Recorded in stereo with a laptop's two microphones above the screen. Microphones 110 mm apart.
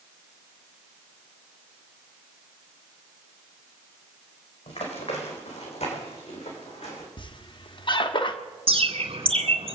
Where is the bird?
60° right (ahead or behind), 2.0 m.